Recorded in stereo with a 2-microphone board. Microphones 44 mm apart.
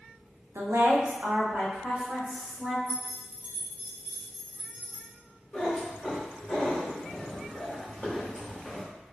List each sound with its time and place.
0.6 s a woman speaking: 80° right, 0.8 m; by 2.8 s 15° right (ahead or behind), 2.5 m
2.9 s keys jangling: 35° right (ahead or behind), 0.7 m
5.5 s a cat meowing: 15° left (ahead or behind), 2.0 m